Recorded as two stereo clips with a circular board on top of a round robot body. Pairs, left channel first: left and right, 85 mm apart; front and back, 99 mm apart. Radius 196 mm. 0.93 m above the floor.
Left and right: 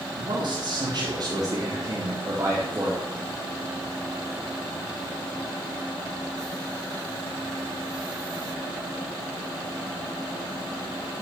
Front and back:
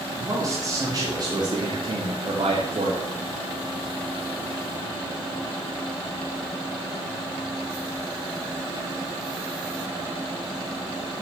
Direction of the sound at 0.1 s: 120° right.